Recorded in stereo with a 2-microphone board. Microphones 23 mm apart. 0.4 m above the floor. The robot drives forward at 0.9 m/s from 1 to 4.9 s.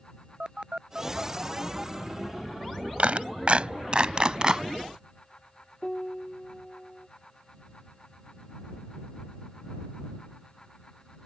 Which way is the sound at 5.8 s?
20° left (ahead or behind).